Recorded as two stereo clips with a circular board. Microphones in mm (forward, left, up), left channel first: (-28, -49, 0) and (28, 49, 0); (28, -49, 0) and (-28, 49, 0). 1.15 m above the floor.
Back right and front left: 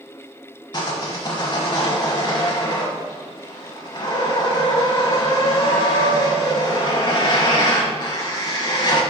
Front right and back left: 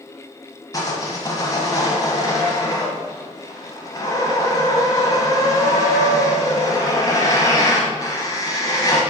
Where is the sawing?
100° right, 1.3 m.